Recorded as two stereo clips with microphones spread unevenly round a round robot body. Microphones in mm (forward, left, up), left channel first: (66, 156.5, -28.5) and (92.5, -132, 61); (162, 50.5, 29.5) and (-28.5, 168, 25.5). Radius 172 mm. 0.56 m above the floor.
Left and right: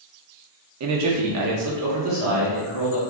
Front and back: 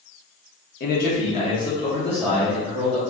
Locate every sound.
0.8 s a man speaking: 50° right, 0.8 m; by 3.0 s 135° right, 1.2 m